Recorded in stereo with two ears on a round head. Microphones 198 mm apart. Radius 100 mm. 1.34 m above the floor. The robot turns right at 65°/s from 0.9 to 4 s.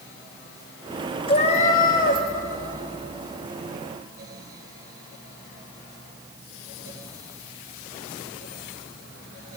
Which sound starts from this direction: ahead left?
A cat meowing, at 1.3 s.